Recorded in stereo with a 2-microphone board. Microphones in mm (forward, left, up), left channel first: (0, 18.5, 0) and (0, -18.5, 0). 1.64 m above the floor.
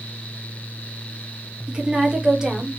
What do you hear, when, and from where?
1.7 s a woman speaking: 30° right (ahead or behind), 1.3 m; by 2.8 s 10° right (ahead or behind), 0.9 m